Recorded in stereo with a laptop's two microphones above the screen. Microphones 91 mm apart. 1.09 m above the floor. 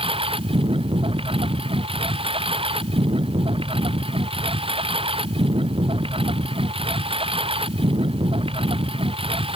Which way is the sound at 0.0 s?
75° right (ahead or behind).